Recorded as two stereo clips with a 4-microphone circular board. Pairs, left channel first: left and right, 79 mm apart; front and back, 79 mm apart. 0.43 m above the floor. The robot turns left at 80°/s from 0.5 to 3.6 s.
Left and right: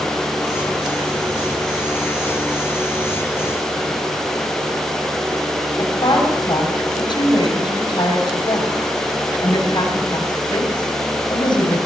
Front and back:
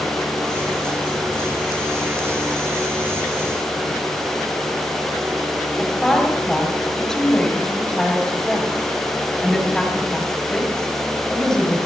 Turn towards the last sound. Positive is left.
turn(degrees=80)